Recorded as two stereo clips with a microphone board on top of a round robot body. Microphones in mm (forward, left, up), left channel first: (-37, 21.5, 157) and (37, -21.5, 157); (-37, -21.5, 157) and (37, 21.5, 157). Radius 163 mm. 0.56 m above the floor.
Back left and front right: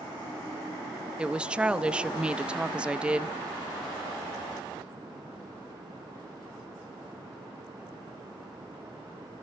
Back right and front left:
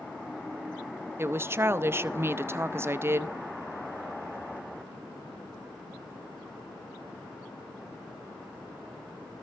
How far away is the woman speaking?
About 0.9 m.